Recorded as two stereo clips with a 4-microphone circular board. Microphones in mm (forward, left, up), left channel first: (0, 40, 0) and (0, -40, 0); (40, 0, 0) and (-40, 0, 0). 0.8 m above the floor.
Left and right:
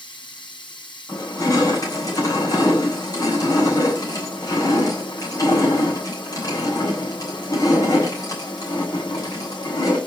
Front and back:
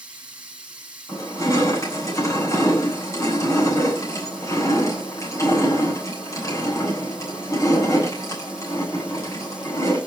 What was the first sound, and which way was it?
Running water, 100° left.